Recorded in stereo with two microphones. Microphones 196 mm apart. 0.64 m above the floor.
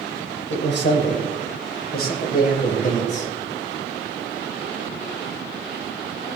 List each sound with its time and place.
0.5 s a man speaking: 70° left (ahead or behind), 3.5 m; by 3.3 s 35° left (ahead or behind), 3.5 m